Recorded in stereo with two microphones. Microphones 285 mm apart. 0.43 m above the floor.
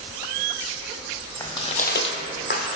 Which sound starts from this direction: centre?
Footsteps, at 1.4 s.